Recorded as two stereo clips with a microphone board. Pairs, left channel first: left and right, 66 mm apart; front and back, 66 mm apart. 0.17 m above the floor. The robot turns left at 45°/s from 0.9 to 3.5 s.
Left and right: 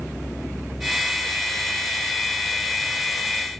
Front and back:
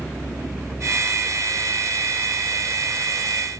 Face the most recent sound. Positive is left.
No sound to turn to.